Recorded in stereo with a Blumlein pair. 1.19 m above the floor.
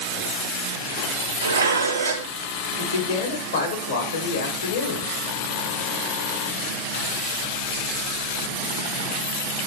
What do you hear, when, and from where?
1.4 s dishes clattering: 70° right, 0.5 m
2.8 s a man speaking: 70° left, 1.5 m